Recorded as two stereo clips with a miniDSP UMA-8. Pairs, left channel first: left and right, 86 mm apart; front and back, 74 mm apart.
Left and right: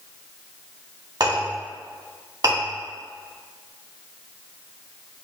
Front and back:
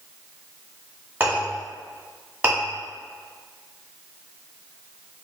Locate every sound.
1.2 s a clink: 115° right, 1.5 m